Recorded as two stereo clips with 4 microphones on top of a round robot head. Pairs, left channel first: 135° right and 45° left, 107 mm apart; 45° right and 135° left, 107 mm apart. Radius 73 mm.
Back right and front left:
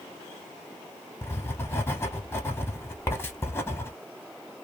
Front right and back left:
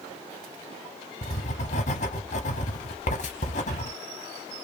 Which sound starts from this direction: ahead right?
Writing, at 1.2 s.